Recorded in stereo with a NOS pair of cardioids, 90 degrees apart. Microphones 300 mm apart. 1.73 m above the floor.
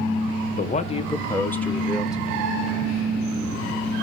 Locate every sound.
0.6 s a man speaking: 30° left, 1.1 m; by 2.5 s 5° right, 2 m